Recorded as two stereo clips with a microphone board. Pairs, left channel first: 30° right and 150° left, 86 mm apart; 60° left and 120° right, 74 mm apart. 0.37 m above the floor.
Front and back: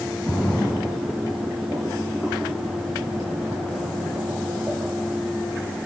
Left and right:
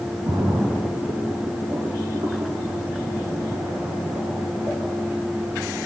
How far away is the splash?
About 1.0 m.